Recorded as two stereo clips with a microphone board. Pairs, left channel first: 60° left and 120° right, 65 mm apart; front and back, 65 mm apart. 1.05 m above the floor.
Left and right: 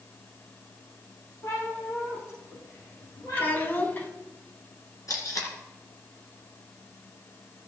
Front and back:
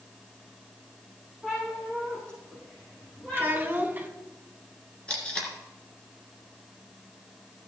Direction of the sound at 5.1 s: 70° left.